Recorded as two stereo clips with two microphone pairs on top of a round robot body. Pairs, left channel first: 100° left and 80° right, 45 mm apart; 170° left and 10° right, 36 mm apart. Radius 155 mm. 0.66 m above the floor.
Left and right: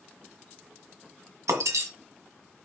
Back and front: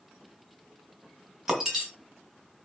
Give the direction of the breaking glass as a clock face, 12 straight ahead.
3 o'clock.